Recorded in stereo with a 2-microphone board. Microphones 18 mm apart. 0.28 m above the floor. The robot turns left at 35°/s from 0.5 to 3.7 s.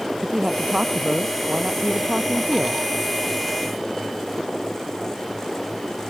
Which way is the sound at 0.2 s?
50° right.